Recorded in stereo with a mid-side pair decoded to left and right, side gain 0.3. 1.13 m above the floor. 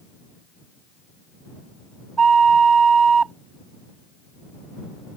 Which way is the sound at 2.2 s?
65° right.